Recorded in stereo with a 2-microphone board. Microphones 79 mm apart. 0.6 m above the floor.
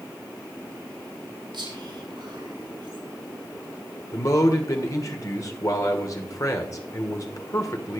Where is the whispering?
75° right (ahead or behind), 6 m.